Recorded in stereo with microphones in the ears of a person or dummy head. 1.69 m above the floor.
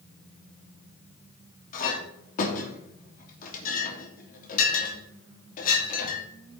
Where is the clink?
45° left (ahead or behind), 3 m.